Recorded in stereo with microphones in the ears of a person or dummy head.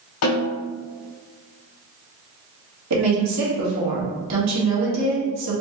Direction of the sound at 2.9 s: 85° right.